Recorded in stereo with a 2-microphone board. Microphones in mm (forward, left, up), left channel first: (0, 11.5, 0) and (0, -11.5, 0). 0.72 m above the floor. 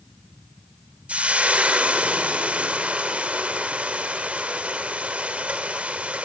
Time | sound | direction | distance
1.1 | frying | 65° right (ahead or behind) | 3 m